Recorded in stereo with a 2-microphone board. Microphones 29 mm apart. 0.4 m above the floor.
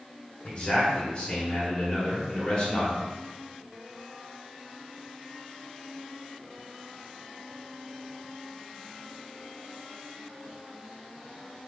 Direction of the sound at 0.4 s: 40° left (ahead or behind).